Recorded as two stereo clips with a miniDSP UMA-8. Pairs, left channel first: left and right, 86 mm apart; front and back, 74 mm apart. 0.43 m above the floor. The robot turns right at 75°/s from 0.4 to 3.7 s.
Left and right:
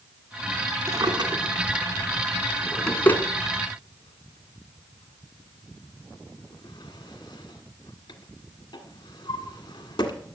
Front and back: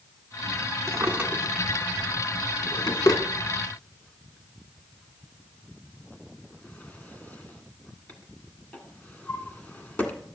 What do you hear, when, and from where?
0.9 s a drawer: 145° right, 1.5 m; by 10.1 s 70° left, 1.5 m